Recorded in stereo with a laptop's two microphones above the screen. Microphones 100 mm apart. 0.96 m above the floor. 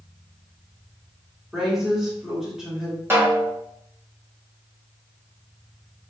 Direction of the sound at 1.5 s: 5° right (ahead or behind).